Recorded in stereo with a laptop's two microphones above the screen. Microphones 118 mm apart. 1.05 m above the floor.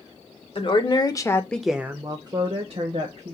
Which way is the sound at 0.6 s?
50° left (ahead or behind).